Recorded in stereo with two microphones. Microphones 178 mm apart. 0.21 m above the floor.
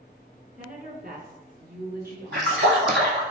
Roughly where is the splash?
Right.